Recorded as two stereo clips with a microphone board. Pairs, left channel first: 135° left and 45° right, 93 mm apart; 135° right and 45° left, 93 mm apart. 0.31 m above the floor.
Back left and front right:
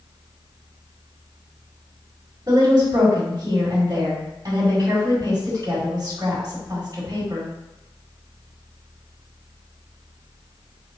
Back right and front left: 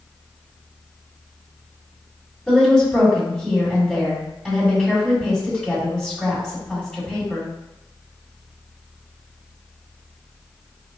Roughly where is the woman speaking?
Ahead right.